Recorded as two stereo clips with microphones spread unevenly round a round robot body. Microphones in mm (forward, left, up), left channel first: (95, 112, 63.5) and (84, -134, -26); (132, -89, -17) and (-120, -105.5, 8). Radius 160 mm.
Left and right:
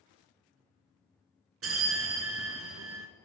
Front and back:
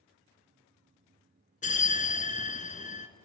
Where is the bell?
60° right, 1.0 m.